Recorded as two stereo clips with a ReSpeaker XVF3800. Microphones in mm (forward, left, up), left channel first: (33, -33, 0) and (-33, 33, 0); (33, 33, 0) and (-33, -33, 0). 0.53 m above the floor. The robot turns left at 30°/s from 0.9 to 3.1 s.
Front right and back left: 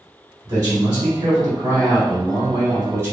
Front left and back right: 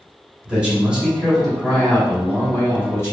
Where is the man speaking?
150° left, 1.7 m; by 3.1 s 85° left, 1.7 m.